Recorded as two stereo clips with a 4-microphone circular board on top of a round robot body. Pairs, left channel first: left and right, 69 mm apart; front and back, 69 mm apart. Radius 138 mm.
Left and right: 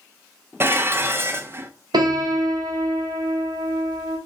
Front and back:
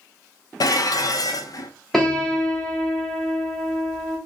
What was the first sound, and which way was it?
Dishes clattering, 30° right.